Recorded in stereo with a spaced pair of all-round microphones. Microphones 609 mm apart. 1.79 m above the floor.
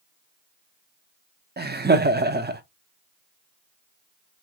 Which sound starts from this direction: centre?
Laughter, at 1.6 s.